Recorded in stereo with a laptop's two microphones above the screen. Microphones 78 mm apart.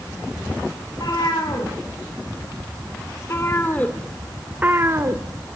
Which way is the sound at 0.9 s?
60° left (ahead or behind).